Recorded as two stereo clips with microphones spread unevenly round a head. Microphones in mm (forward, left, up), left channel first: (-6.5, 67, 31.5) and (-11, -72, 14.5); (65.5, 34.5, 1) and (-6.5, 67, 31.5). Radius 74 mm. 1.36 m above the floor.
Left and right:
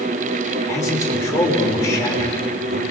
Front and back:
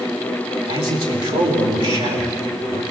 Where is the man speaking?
155° left, 5.5 m.